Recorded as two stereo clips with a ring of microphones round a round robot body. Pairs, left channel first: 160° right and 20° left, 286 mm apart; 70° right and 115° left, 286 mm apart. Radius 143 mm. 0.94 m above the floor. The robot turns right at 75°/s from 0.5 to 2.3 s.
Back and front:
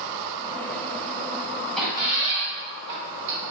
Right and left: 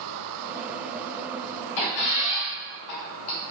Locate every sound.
1.8 s a squeak: 70° right, 0.7 m; by 3.5 s 30° right, 0.7 m